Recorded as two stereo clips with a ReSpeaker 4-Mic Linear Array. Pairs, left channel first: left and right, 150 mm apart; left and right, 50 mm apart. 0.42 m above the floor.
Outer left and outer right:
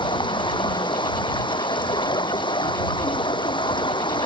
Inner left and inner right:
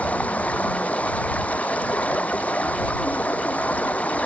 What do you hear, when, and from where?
0.0 s running water: 30° left (ahead or behind)